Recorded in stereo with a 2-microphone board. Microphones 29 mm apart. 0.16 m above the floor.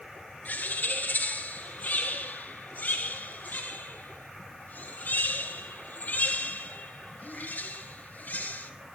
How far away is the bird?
About 1.4 m.